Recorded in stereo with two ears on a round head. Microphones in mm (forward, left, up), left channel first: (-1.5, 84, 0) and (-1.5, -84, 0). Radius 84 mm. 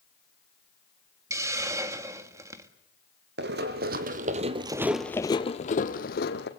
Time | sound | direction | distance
1.3 | a hiss | 15° right (ahead or behind) | 1.5 m
3.4 | running footsteps | 65° right (ahead or behind) | 3 m